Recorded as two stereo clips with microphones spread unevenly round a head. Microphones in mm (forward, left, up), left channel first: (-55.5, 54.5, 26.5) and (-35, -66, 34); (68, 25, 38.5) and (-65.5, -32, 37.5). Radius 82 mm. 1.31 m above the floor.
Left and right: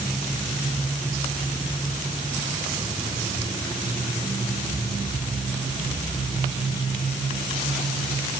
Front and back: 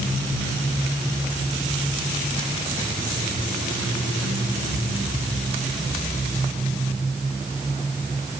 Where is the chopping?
I don't hear chopping.